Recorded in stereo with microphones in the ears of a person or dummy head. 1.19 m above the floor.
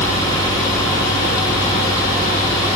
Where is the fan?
20° left (ahead or behind).